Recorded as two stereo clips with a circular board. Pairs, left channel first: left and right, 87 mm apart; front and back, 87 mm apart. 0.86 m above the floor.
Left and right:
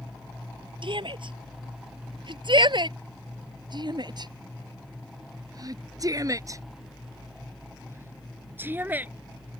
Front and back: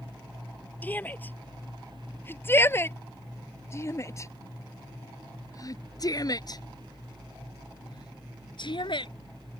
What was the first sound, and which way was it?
A shout, 70° right.